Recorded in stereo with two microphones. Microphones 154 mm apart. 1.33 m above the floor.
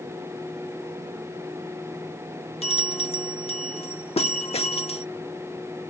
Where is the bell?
40° left (ahead or behind).